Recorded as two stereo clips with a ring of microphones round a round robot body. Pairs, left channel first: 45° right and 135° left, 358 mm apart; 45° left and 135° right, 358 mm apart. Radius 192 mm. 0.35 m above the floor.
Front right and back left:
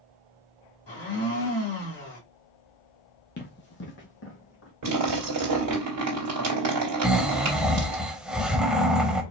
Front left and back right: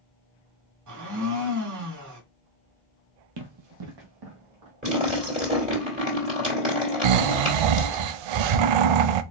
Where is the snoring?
135° right, 0.5 m.